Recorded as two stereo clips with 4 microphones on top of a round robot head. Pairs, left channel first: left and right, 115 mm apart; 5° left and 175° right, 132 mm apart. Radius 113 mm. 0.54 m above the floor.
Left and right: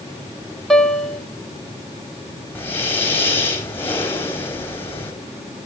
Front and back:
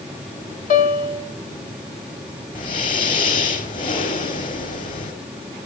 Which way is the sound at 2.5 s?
20° left.